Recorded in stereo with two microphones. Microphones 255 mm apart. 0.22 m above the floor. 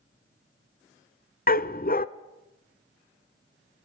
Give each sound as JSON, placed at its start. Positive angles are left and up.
{"t": 1.5, "sound": "a dog barking", "side_deg": 40, "distance_m": 0.7}